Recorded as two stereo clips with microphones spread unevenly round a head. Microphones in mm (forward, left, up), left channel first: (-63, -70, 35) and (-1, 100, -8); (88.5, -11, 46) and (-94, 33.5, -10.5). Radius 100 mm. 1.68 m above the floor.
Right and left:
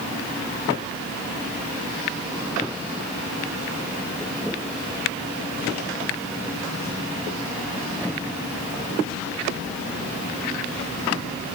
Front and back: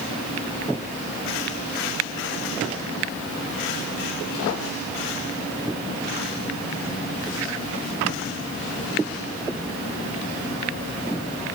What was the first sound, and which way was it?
Only background noise.